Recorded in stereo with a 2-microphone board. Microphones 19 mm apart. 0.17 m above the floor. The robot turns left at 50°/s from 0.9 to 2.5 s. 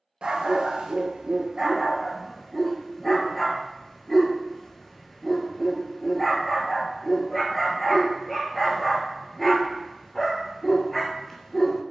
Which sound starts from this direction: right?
A dog barking, at 0.2 s.